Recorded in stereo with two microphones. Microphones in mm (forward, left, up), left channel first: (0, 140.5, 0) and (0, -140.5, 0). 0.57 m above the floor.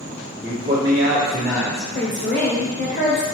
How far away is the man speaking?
About 1.5 m.